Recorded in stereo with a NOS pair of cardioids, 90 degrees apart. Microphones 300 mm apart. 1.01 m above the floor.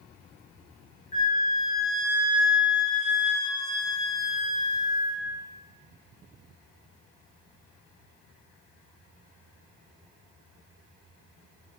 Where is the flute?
25° left, 1.6 m.